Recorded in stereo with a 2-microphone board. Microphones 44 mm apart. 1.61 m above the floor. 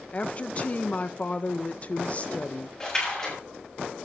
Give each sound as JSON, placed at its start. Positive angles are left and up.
{"t": 0.1, "sound": "a woman speaking", "side_deg": 30, "distance_m": 1.2}
{"t": 2.8, "sound": "a splash", "side_deg": 15, "distance_m": 7.5}